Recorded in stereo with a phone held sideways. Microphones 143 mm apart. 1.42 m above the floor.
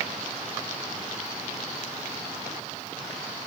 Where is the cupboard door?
No cupboard door in this recording.